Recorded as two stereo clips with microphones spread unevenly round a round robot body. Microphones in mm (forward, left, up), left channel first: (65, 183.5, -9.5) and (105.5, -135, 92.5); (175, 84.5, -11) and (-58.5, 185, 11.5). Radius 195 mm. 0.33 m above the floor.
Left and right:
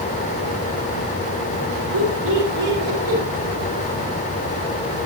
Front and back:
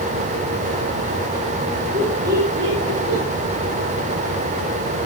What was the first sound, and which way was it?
Laughter, 130° right.